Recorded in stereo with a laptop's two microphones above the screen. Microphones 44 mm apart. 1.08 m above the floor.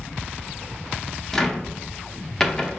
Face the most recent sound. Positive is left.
turn(degrees=10)  # may be behind; listen again after turning